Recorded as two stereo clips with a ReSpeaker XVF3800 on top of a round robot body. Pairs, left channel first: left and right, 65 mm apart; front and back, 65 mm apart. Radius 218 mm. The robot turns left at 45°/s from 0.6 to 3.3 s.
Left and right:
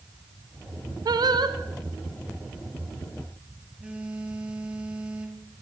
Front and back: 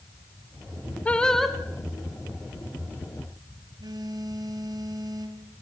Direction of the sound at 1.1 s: 70° right.